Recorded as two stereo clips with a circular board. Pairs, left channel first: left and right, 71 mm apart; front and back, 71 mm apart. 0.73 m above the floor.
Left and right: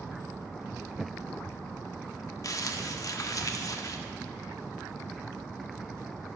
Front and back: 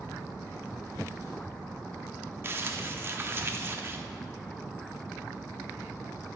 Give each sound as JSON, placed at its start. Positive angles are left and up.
{"t": 2.4, "sound": "crumpling", "azimuth_deg": 125, "distance_m": 0.7}